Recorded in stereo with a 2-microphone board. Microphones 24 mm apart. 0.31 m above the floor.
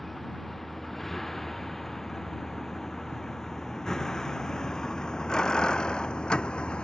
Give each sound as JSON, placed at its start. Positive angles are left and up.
{"t": 0.0, "sound": "a vehicle", "side_deg": 10}